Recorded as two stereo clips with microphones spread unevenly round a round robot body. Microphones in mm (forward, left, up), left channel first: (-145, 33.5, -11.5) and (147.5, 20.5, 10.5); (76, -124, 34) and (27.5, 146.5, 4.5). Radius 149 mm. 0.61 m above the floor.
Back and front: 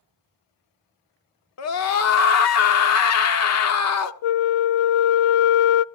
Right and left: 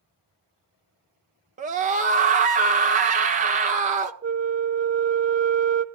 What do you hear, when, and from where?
1.6 s a scream: 155° left, 1.2 m
4.2 s a flute: 165° left, 0.6 m